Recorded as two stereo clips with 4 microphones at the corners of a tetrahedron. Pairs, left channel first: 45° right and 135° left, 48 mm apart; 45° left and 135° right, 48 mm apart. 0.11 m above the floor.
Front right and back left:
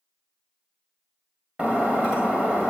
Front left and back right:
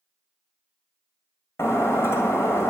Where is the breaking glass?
75° left, 2 m.